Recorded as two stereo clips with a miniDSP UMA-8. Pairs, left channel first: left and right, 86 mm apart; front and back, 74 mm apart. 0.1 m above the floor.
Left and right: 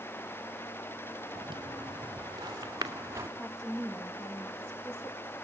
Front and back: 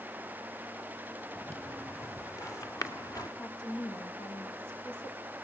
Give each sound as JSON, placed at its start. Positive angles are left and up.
{"t": 1.4, "sound": "footsteps", "azimuth_deg": -60, "distance_m": 3.0}
{"t": 3.4, "sound": "a woman speaking", "azimuth_deg": 5, "distance_m": 5.0}